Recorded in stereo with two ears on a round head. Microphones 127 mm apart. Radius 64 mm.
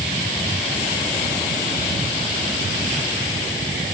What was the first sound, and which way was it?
Only background noise.